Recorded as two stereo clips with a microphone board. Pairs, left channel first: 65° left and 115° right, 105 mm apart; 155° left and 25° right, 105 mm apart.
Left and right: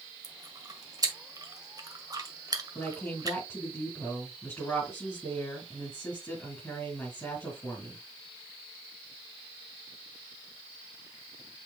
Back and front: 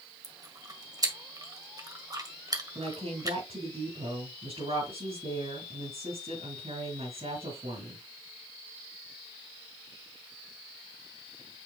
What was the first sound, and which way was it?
Chewing, 65° right.